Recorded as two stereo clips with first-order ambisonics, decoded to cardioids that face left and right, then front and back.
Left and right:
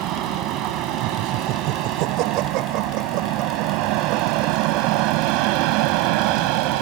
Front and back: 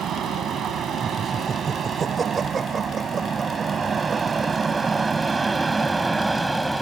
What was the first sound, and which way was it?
An aircraft, 125° right.